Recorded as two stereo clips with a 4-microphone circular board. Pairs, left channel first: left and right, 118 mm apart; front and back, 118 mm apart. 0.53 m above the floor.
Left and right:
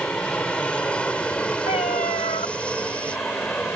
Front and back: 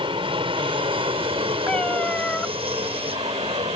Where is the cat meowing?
80° left.